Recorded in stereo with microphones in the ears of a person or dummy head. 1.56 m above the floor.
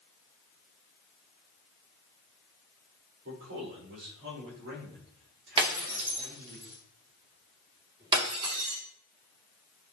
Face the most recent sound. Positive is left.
turn(degrees=-30)  # may be behind; listen again after turning